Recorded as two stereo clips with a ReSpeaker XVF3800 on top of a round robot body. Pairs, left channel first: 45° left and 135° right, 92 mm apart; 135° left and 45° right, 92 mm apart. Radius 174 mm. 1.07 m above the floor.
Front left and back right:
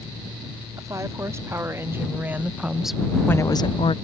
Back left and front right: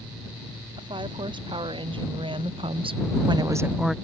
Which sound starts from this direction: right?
A woman speaking, at 0.8 s.